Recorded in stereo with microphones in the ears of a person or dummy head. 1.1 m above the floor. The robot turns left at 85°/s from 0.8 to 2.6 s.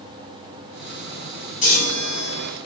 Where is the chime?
145° left, 2 m; by 2.5 s 70° left, 2 m.